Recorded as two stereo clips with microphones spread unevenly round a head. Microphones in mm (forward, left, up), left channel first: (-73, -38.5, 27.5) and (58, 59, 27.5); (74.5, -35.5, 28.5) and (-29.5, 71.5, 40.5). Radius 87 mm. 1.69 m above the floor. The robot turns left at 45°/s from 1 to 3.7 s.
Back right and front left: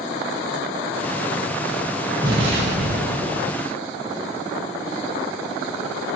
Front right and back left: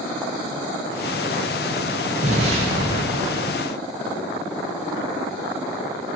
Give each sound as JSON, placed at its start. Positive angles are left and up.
{"t": 2.2, "sound": "an explosion", "azimuth_deg": 100, "distance_m": 0.9}